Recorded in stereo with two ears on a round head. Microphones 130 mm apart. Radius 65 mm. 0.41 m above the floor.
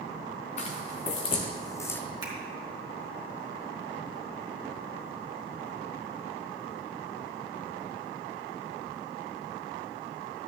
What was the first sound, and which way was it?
Footsteps, 50° left (ahead or behind).